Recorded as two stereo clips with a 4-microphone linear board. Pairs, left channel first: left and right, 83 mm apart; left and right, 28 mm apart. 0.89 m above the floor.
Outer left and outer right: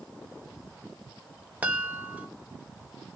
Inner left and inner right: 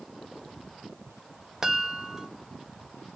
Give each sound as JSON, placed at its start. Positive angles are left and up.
{"t": 1.6, "sound": "a chime", "side_deg": -15, "distance_m": 0.9}